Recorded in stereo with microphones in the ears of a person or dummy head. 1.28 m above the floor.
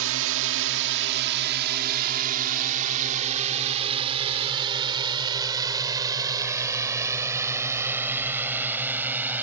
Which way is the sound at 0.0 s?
80° right.